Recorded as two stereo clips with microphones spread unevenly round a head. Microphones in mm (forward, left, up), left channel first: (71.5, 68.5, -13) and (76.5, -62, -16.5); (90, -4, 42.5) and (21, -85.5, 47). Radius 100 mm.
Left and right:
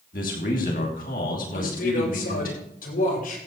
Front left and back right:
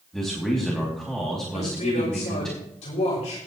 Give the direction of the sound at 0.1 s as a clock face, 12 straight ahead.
7 o'clock.